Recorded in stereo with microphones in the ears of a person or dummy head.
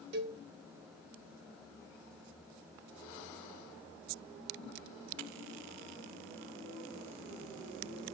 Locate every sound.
0.1 s a cowbell: 60° right (ahead or behind), 1.8 m